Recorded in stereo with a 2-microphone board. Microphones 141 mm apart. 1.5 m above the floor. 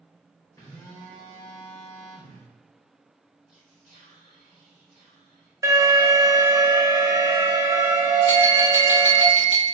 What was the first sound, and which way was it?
A phone buzzing, 20° left (ahead or behind).